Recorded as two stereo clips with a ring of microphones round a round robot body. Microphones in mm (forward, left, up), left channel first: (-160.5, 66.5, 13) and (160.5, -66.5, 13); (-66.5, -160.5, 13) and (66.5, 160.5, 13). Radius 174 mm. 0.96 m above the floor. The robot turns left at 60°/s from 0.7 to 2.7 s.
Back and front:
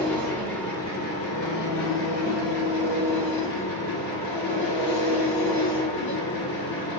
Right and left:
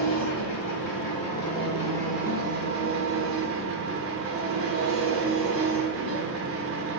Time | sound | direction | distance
0.0 | an engine running | 115° right | 1.2 m